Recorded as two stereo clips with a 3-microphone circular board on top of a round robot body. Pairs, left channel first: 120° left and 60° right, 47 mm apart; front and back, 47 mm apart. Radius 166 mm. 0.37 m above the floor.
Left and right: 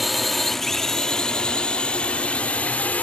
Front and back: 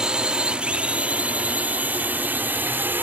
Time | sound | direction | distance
0.0 | a drone | 150° right | ?